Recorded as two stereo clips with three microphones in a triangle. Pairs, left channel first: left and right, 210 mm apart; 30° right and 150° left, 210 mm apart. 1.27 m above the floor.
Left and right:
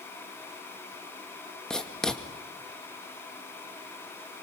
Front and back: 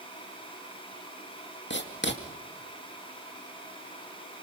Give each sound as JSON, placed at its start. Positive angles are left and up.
{"t": 1.7, "sound": "writing", "azimuth_deg": 5, "distance_m": 2.0}